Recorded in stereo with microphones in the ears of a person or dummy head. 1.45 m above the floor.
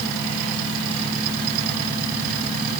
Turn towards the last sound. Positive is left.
No sound to turn to.